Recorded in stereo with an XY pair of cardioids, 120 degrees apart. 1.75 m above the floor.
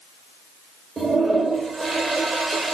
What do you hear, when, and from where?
1.0 s a toilet flushing: 30° right, 1.7 m